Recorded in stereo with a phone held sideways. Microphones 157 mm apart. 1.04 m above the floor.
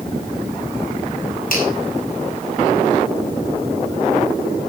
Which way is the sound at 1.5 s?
60° left (ahead or behind).